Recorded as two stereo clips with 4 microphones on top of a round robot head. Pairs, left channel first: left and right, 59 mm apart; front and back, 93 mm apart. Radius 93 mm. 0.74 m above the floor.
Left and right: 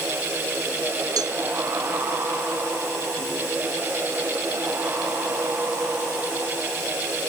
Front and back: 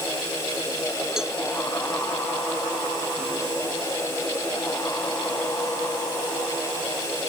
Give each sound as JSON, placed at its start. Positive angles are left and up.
{"t": 1.2, "sound": "a cowbell", "azimuth_deg": -95}